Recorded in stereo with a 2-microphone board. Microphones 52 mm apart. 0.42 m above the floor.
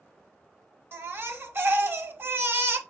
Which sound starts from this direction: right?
A baby crying, at 0.9 s.